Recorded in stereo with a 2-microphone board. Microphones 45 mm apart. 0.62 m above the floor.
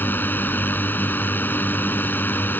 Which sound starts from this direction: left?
A drone, at 0.0 s.